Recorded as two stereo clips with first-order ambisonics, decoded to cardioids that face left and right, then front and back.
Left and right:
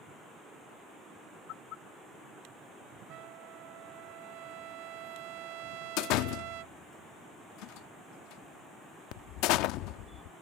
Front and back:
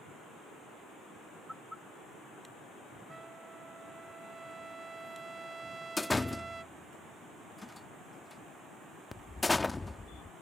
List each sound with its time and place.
3.1 s a trumpet: 105° right
6.0 s a door slam: 80° left